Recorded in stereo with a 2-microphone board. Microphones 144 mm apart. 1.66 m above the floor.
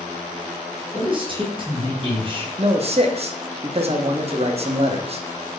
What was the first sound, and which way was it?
A man speaking, 35° right (ahead or behind).